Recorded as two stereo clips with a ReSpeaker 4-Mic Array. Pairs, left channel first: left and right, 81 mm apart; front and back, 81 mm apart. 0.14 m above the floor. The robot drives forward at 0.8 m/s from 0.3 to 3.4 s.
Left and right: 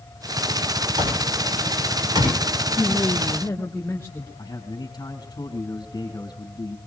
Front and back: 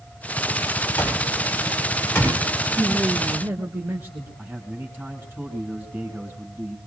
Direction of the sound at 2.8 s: 115° left.